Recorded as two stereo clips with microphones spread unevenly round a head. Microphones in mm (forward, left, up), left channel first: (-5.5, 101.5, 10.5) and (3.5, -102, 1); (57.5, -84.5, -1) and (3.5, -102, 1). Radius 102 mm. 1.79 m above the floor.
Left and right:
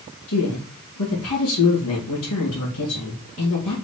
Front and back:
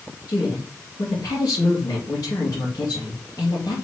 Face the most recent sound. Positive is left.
turn(degrees=80)